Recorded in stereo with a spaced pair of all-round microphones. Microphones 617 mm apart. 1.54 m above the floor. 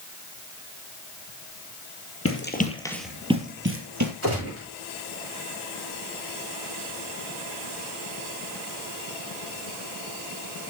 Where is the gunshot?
25° right (ahead or behind), 10 m.